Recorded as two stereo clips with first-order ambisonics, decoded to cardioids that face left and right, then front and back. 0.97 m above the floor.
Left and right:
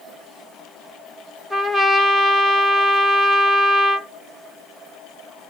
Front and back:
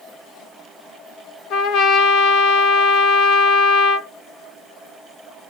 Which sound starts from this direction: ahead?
A trumpet, at 1.5 s.